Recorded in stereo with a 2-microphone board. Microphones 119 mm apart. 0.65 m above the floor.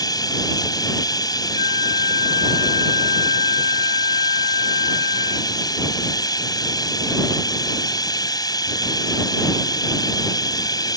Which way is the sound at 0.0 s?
35° left (ahead or behind).